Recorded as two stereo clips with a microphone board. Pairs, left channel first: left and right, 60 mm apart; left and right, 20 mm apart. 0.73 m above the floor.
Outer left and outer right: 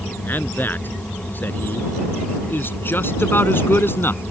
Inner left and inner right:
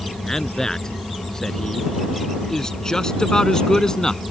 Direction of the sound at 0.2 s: 30° left (ahead or behind).